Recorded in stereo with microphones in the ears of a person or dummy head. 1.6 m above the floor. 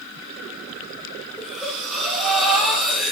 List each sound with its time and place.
1.4 s breathing: 5° right (ahead or behind), 1.1 m